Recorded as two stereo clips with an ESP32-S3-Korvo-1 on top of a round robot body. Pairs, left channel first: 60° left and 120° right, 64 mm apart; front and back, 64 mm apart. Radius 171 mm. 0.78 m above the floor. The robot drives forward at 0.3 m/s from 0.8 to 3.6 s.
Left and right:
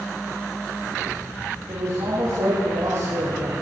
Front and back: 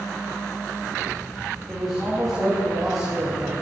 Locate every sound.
1.7 s a man speaking: 90° right, 7 m; by 3.5 s 95° right, 7 m